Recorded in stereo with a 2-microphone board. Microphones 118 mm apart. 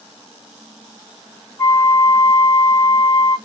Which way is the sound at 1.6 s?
20° left (ahead or behind).